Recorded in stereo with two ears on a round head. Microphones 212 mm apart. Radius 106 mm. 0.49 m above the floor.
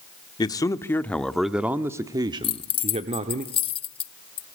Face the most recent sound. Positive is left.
turn(degrees=25)  # may be behind; listen again after turning